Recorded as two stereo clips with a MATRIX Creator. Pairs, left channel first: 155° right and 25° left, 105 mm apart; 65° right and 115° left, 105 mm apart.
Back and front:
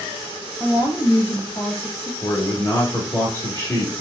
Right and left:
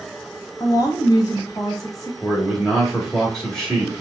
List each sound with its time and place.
0.6 s a woman speaking: 110° right, 1.4 m
2.2 s a man speaking: 145° right, 1.2 m